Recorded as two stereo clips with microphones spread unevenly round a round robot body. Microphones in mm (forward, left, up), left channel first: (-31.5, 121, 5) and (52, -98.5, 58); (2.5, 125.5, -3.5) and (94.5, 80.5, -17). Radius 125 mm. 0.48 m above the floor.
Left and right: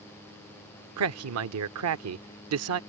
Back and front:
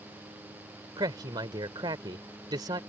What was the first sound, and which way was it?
A man speaking, 70° right.